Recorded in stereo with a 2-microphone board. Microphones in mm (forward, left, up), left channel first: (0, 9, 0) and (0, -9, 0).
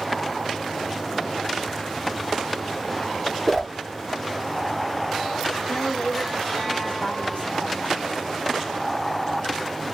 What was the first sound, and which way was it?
A whoosh, 15° left (ahead or behind).